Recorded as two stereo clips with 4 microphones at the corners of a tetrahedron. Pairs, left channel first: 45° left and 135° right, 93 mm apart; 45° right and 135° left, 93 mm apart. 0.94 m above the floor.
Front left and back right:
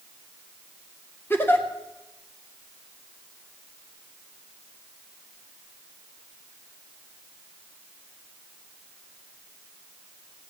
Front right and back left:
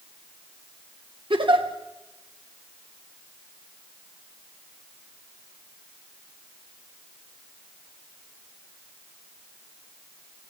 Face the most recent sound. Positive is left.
turn(degrees=110)